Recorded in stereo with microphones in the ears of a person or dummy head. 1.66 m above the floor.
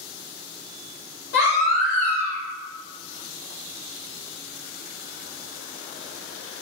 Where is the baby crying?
75° left (ahead or behind), 1.9 m.